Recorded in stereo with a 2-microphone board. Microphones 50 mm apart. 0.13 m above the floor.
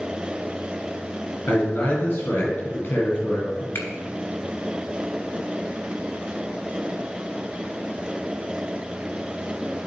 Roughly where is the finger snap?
Left.